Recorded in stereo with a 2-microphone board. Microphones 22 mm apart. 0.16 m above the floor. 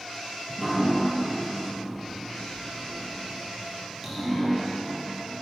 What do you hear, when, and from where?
0.5 s dripping: 5° right (ahead or behind), 1.7 m